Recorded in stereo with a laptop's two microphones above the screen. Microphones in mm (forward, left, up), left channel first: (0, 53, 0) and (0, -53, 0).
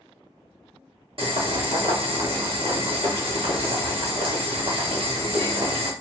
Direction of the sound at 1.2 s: 55° right (ahead or behind).